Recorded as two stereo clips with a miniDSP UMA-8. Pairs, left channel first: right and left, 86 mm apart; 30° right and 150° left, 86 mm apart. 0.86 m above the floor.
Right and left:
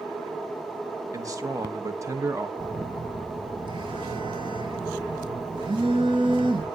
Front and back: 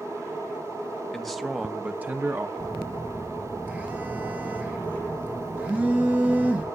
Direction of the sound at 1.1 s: 55° left.